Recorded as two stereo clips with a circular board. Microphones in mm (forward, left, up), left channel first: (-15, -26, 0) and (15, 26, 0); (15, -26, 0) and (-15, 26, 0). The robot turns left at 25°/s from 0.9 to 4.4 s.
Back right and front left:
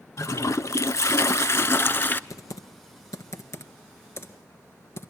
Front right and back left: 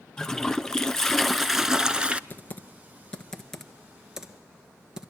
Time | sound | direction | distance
0.2 | a toilet flushing | 140° right | 0.7 m
2.3 | typing on a keyboard | 115° right | 1.5 m